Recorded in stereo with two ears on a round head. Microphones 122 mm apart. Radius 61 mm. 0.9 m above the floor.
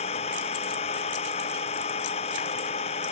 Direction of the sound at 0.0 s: 45° left (ahead or behind).